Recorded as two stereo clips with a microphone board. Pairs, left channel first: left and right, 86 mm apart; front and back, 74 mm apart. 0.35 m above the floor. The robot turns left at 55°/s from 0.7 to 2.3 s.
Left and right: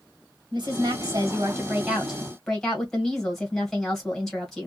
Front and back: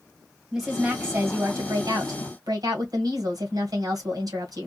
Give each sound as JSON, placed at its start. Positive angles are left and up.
{"t": 0.5, "sound": "a woman speaking", "azimuth_deg": -100, "distance_m": 1.8}